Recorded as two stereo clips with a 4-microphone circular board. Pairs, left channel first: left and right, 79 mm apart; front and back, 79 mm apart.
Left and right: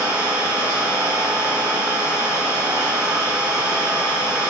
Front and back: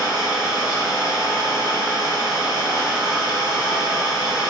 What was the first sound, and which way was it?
An engine running, 40° right.